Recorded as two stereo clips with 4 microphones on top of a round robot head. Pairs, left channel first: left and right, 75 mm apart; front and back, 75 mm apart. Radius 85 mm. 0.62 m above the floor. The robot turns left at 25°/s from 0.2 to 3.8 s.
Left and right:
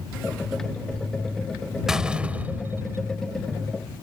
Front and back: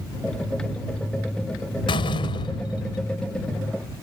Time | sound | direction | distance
1.9 | a door slam | 5° right | ?